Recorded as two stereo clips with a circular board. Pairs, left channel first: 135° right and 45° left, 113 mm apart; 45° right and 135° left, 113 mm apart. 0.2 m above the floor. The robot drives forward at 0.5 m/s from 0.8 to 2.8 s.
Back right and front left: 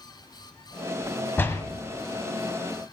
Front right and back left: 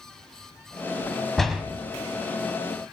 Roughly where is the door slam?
Behind right.